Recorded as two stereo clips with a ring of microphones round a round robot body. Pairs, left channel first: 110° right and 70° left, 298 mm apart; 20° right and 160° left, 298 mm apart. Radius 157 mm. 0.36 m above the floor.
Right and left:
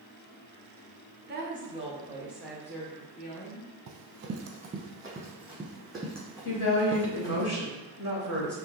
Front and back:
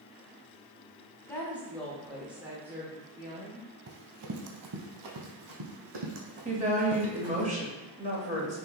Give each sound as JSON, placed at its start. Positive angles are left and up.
{"t": 1.3, "sound": "a woman speaking", "azimuth_deg": 50, "distance_m": 1.1}
{"t": 3.9, "sound": "running footsteps", "azimuth_deg": 105, "distance_m": 0.6}
{"t": 6.5, "sound": "a woman speaking", "azimuth_deg": -140, "distance_m": 1.5}